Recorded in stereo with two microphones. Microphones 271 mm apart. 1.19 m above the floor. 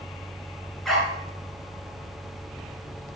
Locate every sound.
0.8 s a dog barking: centre (ahead or behind), 4.5 m